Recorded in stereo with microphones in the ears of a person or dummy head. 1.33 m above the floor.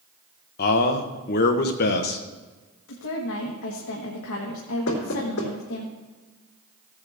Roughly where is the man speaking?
Left.